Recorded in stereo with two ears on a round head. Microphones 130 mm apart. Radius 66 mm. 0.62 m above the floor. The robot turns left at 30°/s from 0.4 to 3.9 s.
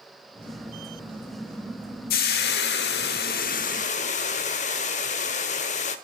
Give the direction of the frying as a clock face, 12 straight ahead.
9 o'clock.